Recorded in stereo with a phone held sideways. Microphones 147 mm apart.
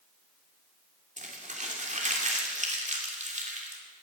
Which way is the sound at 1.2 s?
50° right (ahead or behind).